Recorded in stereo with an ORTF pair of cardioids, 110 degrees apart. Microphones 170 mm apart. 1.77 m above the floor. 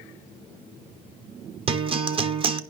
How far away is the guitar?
About 1.1 m.